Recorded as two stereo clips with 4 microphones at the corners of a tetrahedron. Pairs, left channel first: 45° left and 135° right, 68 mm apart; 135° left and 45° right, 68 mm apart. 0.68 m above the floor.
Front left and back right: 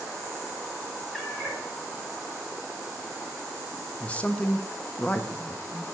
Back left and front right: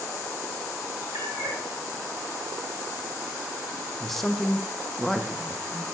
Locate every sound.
1.1 s a cat meowing: 45° right, 1.8 m
4.0 s a man speaking: 55° left, 0.5 m